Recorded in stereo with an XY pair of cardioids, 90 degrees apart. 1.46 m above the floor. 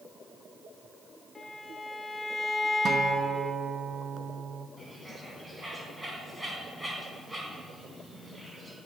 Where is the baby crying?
No baby crying in this recording.